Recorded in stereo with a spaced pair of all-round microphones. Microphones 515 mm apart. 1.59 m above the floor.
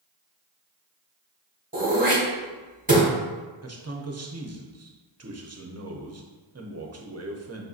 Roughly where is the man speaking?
Right.